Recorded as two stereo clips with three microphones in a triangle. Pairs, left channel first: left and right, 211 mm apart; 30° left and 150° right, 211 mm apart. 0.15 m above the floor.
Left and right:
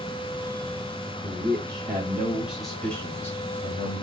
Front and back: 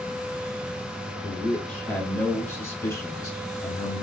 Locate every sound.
1.2 s a man speaking: 50° right, 1.6 m; by 4.0 s 80° left, 1.5 m